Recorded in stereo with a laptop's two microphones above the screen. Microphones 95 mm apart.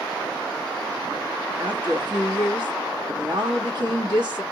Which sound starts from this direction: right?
A woman speaking, at 1.6 s.